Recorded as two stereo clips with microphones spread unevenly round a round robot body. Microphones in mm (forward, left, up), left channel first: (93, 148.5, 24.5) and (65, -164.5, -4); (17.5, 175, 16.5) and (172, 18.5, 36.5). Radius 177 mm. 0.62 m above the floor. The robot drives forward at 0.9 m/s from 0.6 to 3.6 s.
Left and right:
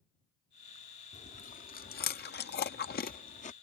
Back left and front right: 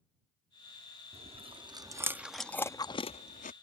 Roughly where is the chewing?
Ahead.